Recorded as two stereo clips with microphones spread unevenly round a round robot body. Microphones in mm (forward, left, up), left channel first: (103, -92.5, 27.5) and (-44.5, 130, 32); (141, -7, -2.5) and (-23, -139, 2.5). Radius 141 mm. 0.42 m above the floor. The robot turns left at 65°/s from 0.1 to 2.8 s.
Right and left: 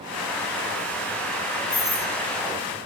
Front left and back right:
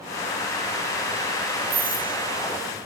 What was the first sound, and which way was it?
A doorbell, 140° right.